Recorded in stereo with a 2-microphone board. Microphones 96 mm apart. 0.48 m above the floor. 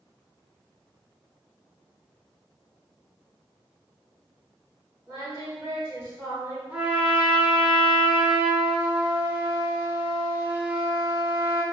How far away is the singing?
About 1.8 m.